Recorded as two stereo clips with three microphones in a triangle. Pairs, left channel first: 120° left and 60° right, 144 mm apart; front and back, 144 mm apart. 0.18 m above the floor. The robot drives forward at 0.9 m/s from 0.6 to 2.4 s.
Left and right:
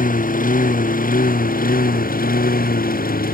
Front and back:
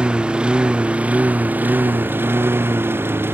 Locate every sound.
0.0 s a lawn mower: 95° left; by 3.4 s 105° left